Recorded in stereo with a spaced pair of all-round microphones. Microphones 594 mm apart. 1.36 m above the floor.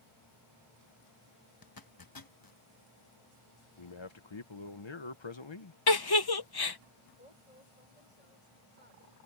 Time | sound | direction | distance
1.6 | a zipper | 35° left (ahead or behind) | ?
3.8 | a man speaking | 50° left (ahead or behind) | ?
5.9 | a giggle | 40° left (ahead or behind) | ?
7.2 | a woman speaking | 80° left | ?